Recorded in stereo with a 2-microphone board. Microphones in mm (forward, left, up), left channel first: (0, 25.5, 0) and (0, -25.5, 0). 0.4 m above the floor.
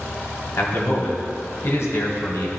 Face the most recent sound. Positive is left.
turn(degrees=60)  # may be behind; listen again after turning